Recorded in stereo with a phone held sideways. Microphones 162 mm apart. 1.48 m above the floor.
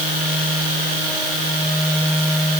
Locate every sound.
Only background noise.